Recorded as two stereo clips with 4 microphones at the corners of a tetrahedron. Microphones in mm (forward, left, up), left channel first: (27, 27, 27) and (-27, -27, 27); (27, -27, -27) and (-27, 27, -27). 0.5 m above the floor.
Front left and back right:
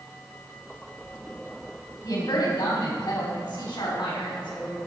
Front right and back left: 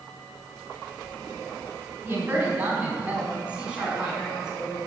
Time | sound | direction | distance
2.0 | a woman speaking | 70° left | 4 m